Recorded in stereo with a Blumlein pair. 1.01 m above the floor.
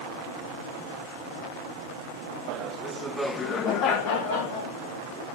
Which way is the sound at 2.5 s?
45° right.